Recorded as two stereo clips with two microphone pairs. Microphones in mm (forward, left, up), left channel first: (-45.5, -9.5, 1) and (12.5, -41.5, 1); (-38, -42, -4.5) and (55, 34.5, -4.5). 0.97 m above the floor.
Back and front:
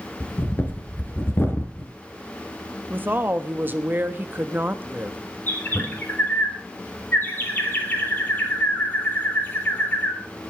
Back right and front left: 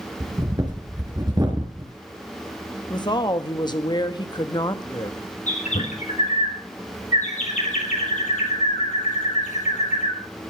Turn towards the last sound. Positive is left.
turn(degrees=-145)